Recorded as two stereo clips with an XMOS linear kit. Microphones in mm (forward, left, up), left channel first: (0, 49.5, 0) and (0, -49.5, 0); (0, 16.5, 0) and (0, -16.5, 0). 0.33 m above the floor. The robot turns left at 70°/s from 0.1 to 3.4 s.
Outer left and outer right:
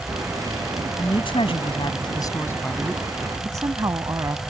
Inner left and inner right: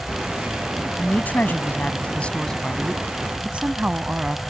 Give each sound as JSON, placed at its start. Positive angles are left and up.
{"t": 1.0, "sound": "a woman speaking", "azimuth_deg": 130}